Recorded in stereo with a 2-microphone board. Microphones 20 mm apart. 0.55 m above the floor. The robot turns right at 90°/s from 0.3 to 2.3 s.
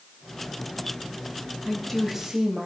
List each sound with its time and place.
1.6 s a woman speaking: 145° left, 2.5 m; by 2.7 s 155° right, 2.5 m